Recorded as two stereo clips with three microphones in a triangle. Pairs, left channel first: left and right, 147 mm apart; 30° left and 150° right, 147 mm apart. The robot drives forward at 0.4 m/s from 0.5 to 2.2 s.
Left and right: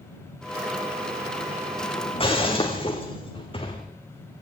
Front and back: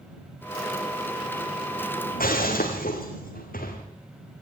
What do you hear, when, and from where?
2.1 s breaking glass: 40° left, 4.5 m